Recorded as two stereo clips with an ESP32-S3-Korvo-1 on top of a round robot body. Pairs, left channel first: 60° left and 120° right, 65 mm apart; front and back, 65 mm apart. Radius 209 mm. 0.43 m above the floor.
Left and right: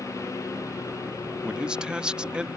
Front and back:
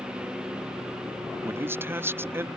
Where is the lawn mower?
100° left.